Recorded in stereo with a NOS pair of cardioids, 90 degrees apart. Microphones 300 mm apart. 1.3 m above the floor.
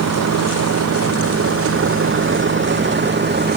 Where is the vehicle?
65° right; by 3.6 s 35° right.